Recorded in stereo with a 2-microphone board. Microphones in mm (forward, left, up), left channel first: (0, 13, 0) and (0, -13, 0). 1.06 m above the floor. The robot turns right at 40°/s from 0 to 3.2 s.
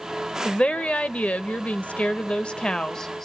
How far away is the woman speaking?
About 1.0 m.